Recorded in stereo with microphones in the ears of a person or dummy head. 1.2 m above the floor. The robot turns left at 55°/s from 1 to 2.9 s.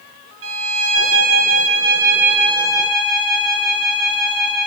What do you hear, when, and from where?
0.4 s a violin: 100° right, 0.6 m; by 4.7 s 155° left, 0.6 m